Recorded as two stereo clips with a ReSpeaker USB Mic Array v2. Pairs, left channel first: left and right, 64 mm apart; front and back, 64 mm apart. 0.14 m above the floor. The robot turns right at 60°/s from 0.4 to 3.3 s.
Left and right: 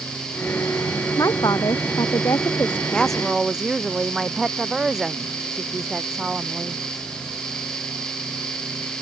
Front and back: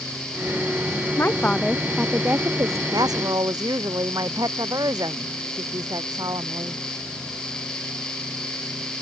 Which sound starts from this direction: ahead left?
A woman speaking, at 1.2 s.